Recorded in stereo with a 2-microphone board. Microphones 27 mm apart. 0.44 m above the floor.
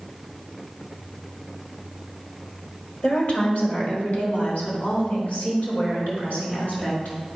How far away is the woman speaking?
About 1.7 m.